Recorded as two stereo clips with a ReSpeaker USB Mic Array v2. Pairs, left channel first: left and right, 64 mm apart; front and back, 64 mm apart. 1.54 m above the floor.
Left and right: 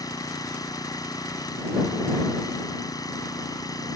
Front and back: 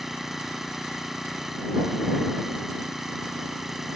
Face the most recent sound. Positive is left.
turn(degrees=95)